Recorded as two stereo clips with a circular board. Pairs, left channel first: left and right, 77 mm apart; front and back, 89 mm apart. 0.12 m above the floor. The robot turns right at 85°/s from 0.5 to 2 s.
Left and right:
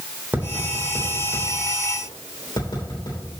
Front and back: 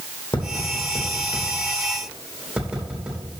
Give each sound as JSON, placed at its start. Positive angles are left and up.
{"t": 0.3, "sound": "tapping", "azimuth_deg": -20, "distance_m": 3.5}